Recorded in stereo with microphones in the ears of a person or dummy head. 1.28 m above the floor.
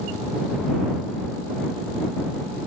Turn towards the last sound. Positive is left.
No sound to turn to.